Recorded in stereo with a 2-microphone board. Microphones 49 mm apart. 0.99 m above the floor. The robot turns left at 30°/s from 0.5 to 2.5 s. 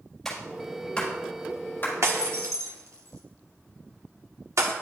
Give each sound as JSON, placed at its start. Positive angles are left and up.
{"t": 0.2, "sound": "a clap", "side_deg": 5, "distance_m": 4.0}
{"t": 2.0, "sound": "breaking glass", "side_deg": -70, "distance_m": 1.1}